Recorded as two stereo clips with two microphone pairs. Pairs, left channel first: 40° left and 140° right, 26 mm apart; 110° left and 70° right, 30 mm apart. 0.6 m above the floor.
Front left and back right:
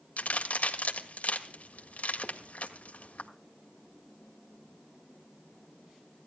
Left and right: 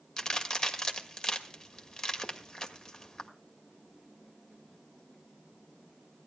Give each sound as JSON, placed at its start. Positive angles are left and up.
{"t": 0.2, "sound": "a crack", "azimuth_deg": 50, "distance_m": 1.6}